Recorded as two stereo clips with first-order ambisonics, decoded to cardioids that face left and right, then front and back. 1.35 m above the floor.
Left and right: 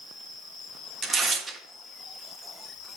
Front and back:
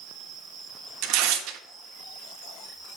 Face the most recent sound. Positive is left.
turn(degrees=-160)